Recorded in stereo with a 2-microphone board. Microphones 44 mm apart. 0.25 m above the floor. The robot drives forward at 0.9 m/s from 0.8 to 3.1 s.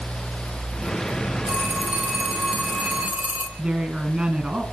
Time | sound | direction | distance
1.5 | a phone ringing | 40° right (ahead or behind) | 7 m
3.6 | a woman speaking | 35° right (ahead or behind) | 2.5 m